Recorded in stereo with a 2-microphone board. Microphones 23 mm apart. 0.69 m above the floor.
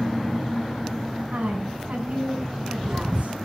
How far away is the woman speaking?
About 7.5 m.